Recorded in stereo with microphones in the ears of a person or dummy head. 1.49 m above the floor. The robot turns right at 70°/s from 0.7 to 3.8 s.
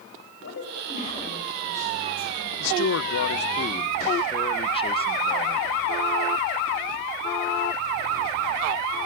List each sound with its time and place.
0.4 s a woman speaking: 120° left, 7.5 m; by 2.5 s 115° right, 7.5 m
2.6 s a man speaking: 65° left, 1.4 m; by 5.7 s 150° left, 1.4 m